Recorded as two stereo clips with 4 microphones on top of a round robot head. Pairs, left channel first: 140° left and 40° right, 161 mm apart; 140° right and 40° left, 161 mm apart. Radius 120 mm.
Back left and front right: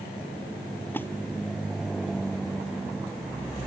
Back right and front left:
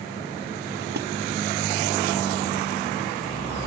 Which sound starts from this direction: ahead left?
A splash, at 0.9 s.